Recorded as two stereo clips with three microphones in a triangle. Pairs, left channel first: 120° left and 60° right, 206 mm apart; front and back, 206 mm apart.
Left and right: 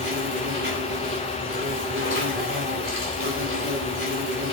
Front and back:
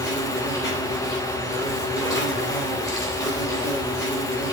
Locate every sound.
0.0 s an insect: 75° right, 4 m